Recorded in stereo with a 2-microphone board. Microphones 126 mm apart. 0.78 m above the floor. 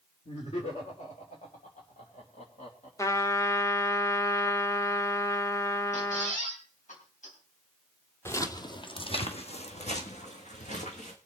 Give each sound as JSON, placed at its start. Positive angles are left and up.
{"t": 0.2, "sound": "laughter", "side_deg": 55, "distance_m": 2.5}
{"t": 3.0, "sound": "a trumpet", "side_deg": 25, "distance_m": 0.9}
{"t": 5.9, "sound": "a squeak", "side_deg": 85, "distance_m": 4.5}
{"t": 8.2, "sound": "footsteps", "side_deg": 20, "distance_m": 1.0}